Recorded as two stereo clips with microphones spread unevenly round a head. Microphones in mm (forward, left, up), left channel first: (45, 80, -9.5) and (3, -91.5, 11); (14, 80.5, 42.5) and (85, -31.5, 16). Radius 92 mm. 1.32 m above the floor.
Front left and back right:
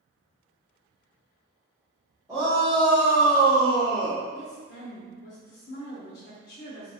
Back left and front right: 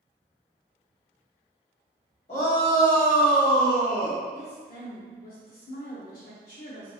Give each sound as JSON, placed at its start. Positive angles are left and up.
{"t": 2.3, "sound": "a shout", "azimuth_deg": 180, "distance_m": 1.0}
{"t": 4.3, "sound": "a woman speaking", "azimuth_deg": 105, "distance_m": 0.8}